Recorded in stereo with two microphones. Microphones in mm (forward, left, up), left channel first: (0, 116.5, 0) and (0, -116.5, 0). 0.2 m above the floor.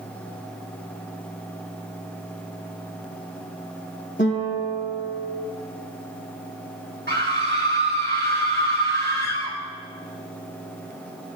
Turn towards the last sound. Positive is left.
turn(degrees=-50)  # may be behind; listen again after turning